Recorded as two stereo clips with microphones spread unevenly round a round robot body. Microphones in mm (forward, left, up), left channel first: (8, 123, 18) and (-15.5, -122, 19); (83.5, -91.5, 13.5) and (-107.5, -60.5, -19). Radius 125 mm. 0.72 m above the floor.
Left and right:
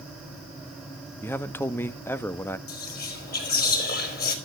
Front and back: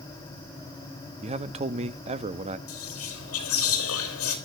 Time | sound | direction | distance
1.2 | a man speaking | 160° left | 0.7 m
2.7 | whispering | 30° left | 4 m